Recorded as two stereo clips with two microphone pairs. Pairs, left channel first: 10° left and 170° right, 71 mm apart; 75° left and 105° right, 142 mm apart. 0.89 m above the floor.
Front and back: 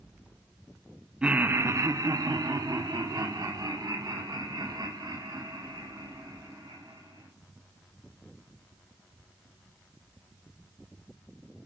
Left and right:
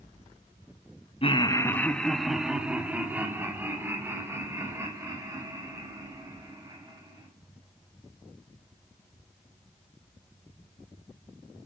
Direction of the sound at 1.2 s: 115° left.